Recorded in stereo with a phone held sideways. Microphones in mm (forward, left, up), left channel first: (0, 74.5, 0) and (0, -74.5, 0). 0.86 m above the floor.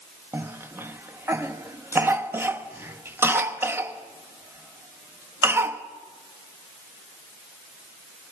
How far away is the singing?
No singing in this recording.